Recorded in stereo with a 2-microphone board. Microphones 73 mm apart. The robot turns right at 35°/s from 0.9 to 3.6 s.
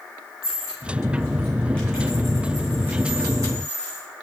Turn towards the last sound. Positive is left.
turn(degrees=-50)  # may be behind; listen again after turning